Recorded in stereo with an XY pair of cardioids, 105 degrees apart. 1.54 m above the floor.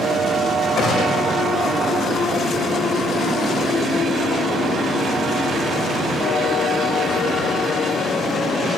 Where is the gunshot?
40° left, 6 m.